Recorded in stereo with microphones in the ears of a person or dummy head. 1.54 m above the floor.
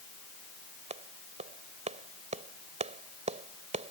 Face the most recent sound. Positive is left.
turn(degrees=-35)  # may be behind; listen again after turning